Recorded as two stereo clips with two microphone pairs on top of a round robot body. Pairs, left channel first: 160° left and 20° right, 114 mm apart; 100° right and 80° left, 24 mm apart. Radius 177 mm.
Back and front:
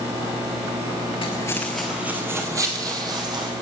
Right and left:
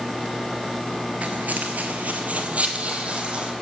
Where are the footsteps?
110° left, 0.8 m; by 3.5 s 30° left, 2 m.